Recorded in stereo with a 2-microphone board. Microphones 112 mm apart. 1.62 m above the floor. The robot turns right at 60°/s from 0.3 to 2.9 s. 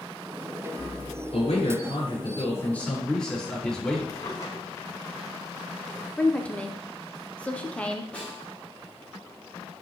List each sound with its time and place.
1.3 s a man speaking: 75° left, 5 m; by 4.0 s 170° left, 5 m
4.1 s a drawer: 35° left (ahead or behind), 1.8 m
6.2 s a woman speaking: 10° left (ahead or behind), 0.9 m
8.1 s a snare drum: 10° left (ahead or behind), 3 m